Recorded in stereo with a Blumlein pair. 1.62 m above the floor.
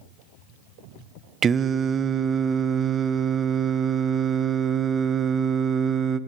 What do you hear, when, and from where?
1.4 s singing: 20° right, 0.8 m